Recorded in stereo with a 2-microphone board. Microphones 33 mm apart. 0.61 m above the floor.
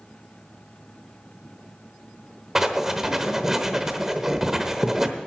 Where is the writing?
15° right (ahead or behind), 1.0 m.